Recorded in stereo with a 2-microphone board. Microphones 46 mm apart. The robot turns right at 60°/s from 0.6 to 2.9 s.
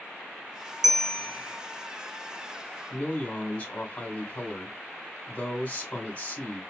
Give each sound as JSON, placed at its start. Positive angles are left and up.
{"t": 0.8, "sound": "a bell", "azimuth_deg": -10, "distance_m": 1.4}
{"t": 2.9, "sound": "a man speaking", "side_deg": 25, "distance_m": 1.8}